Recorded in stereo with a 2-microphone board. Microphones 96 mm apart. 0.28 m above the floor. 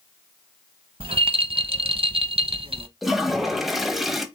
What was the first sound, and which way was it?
A rattle, 70° right (ahead or behind).